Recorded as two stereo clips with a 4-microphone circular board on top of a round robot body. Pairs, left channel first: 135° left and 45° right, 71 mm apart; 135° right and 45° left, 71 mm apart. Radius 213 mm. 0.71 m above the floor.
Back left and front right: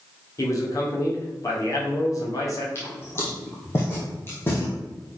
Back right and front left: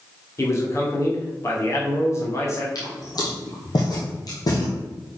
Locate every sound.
0.4 s a man speaking: 175° left, 2.5 m
2.8 s footsteps: 170° right, 1.8 m; by 4.7 s 165° right, 3 m